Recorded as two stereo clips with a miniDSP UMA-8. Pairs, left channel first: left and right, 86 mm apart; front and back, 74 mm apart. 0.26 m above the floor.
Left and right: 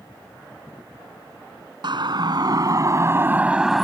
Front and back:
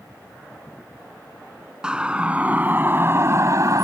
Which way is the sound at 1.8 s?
100° right.